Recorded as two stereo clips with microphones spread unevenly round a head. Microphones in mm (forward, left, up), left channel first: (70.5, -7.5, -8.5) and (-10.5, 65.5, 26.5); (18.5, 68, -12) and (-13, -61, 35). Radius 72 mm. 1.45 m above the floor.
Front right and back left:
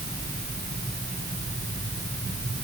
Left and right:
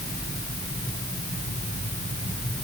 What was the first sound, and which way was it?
Only background noise.